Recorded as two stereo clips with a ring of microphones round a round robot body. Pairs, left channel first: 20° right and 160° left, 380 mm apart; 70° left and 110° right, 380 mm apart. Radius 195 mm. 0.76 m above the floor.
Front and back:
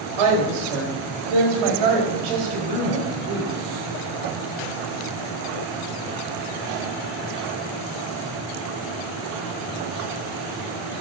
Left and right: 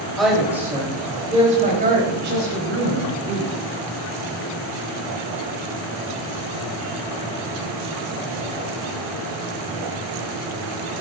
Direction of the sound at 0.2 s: 155° left.